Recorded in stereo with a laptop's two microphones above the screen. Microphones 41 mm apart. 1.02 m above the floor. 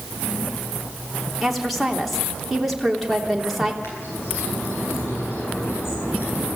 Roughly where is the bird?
Left.